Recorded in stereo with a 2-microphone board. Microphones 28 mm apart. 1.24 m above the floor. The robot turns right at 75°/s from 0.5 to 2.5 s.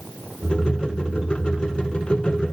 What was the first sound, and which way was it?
Only background noise.